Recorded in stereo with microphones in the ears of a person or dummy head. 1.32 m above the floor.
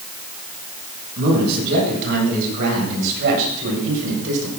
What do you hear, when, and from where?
1.2 s a man speaking: 55° right (ahead or behind), 9.5 m; by 4.5 s 65° right (ahead or behind), 8.5 m